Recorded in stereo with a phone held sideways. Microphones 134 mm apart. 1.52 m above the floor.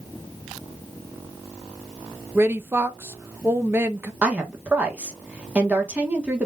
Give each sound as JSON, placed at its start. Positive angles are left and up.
{"t": 2.4, "sound": "a woman speaking", "side_deg": -20, "distance_m": 0.7}
{"t": 4.2, "sound": "a woman speaking", "side_deg": -10, "distance_m": 1.6}